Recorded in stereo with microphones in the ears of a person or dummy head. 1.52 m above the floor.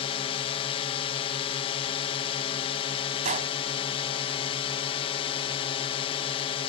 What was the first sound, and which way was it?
A drone, 30° left (ahead or behind).